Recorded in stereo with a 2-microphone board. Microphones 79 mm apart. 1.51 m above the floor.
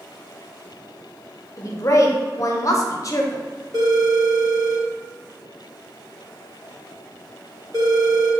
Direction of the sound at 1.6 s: 40° left (ahead or behind).